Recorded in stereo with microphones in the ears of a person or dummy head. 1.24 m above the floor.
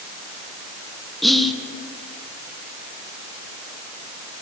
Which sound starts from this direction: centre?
Whispering, at 1.2 s.